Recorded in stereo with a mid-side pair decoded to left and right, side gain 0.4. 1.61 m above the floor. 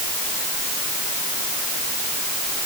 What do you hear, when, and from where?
Only background noise.